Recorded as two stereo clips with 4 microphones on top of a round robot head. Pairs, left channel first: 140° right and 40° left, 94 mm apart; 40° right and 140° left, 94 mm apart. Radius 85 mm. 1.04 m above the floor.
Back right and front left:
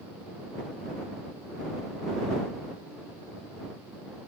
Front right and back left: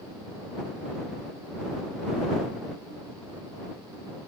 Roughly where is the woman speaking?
I don't hear a woman speaking.